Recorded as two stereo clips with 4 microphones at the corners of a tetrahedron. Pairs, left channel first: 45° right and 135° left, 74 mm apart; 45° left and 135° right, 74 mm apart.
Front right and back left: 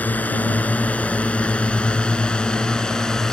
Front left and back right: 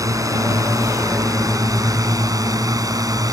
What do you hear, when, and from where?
0.0 s a drone: 110° right; by 3.3 s 125° right